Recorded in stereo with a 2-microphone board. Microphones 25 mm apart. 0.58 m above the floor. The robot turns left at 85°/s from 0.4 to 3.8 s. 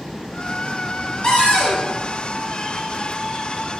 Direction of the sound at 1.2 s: 125° left.